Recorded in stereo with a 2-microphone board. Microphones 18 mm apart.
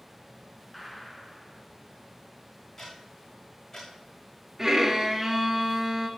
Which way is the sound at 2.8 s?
25° left (ahead or behind).